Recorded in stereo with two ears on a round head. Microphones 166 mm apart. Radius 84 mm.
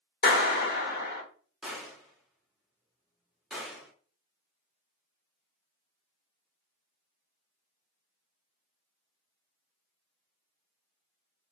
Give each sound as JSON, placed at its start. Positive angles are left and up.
{"t": 0.2, "sound": "a clap", "side_deg": 50, "distance_m": 1.0}
{"t": 1.6, "sound": "a gunshot", "side_deg": 0, "distance_m": 1.0}